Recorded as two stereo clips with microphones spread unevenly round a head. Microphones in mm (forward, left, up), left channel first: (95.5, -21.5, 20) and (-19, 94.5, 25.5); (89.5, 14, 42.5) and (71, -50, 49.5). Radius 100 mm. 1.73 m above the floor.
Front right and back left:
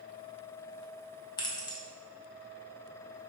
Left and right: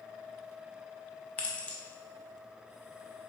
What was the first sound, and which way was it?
Keys jangling, 5° left.